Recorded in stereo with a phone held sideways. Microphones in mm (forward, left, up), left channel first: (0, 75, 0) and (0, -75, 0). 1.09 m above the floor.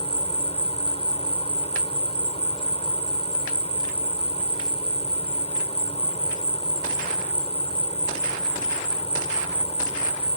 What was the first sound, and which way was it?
An insect, 40° left (ahead or behind).